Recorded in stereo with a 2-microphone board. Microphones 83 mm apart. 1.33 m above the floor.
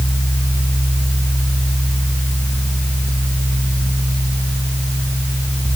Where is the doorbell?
I don't hear a doorbell.